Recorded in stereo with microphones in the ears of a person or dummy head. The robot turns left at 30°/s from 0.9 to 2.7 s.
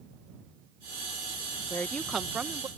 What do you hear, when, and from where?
1.7 s a woman speaking: 20° left (ahead or behind); by 2.7 s 10° right (ahead or behind)